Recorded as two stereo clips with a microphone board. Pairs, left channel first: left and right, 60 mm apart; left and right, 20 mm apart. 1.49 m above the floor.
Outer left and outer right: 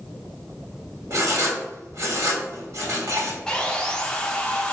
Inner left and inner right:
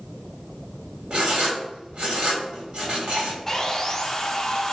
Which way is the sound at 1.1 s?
55° right (ahead or behind).